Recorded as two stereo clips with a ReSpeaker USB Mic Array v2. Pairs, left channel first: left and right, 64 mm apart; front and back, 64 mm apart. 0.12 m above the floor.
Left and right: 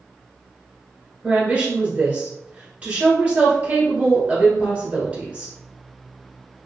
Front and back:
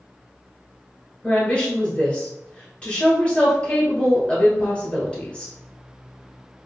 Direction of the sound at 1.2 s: 45° right.